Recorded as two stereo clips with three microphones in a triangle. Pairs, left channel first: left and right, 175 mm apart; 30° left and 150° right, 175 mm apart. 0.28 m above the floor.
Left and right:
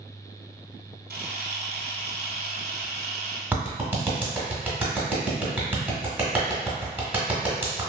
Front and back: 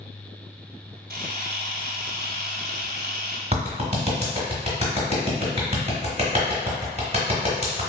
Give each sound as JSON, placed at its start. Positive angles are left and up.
{"t": 1.1, "sound": "a camera shutter", "azimuth_deg": -120, "distance_m": 0.7}
{"t": 3.5, "sound": "a clap", "azimuth_deg": -165, "distance_m": 0.9}